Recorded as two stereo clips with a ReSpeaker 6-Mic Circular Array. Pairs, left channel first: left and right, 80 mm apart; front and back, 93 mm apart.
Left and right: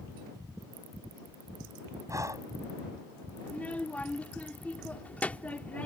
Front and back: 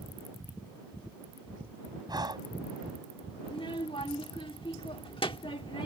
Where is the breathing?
140° right.